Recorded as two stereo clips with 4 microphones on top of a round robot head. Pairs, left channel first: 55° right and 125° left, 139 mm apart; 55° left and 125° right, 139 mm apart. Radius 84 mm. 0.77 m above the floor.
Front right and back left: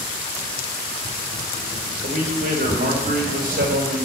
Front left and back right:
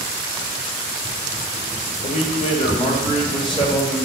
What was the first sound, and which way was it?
A man speaking, 90° left.